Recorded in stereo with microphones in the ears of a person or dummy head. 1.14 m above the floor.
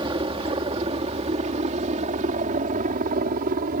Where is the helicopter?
25° right (ahead or behind); by 3.8 s 50° right (ahead or behind).